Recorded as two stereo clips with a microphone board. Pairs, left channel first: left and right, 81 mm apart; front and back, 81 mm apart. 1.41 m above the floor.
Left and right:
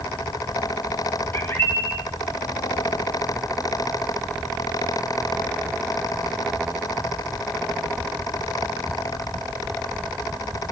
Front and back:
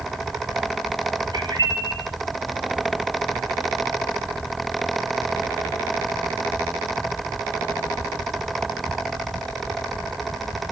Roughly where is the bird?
Behind left.